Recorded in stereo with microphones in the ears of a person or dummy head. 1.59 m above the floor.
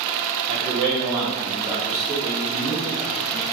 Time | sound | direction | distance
0.5 | a man speaking | 30° right (ahead or behind) | 0.7 m